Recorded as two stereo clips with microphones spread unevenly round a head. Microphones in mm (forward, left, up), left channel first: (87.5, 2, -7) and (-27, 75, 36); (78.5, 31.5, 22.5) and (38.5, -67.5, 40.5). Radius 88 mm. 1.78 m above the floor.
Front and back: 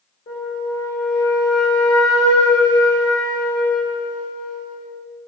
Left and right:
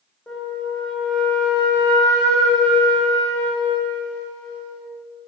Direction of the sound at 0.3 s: 15° right.